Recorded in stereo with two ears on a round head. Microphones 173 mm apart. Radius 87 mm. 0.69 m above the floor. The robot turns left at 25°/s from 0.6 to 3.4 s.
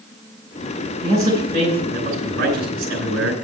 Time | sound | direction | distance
1.0 | a man speaking | 15° right | 3 m